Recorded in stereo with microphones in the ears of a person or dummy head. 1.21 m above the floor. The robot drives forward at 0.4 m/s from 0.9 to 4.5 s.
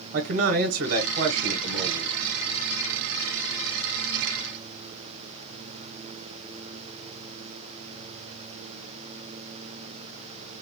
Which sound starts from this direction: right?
A man speaking, at 0.1 s.